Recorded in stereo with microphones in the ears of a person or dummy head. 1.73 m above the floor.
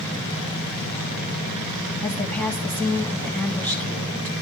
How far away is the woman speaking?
About 2.5 m.